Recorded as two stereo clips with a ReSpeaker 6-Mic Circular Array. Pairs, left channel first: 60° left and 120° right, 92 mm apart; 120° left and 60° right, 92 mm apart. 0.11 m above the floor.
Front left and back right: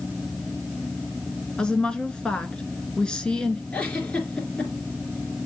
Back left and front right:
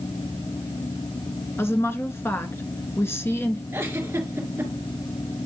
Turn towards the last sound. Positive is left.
turn(degrees=-10)